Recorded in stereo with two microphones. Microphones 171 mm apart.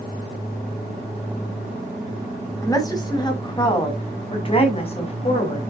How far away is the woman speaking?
About 3.5 m.